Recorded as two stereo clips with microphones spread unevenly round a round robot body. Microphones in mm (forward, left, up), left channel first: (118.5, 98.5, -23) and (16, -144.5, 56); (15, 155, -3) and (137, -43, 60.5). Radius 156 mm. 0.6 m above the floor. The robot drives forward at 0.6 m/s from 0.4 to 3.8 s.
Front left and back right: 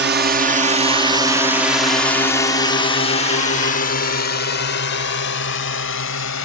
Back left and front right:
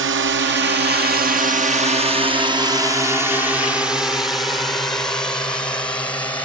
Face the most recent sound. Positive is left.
turn(degrees=45)